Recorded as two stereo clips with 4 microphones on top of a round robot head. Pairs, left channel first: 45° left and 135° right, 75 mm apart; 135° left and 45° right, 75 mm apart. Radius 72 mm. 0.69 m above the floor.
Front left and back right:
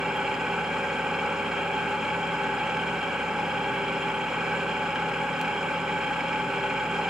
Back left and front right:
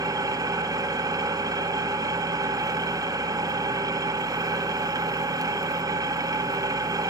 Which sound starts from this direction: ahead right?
An engine running, at 0.0 s.